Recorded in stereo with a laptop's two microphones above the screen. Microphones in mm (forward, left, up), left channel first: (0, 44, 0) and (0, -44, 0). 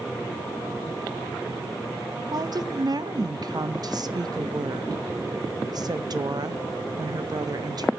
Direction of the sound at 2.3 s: 50° right (ahead or behind).